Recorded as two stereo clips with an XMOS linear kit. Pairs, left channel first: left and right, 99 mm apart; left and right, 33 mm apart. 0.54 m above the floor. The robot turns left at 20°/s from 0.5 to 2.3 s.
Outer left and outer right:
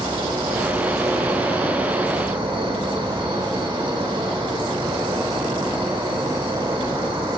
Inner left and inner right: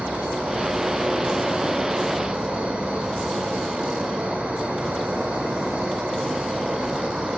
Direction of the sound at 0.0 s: 80° right.